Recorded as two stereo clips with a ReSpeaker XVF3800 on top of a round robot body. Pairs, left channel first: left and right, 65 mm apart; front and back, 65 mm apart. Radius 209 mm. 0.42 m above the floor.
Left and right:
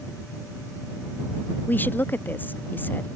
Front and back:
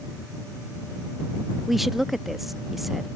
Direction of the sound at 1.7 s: 95° left.